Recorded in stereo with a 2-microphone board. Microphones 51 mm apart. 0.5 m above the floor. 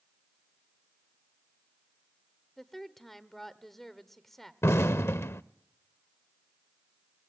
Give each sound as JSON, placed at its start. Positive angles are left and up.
{"t": 2.6, "sound": "a woman speaking", "side_deg": 5, "distance_m": 1.2}
{"t": 4.6, "sound": "an explosion", "side_deg": 65, "distance_m": 0.6}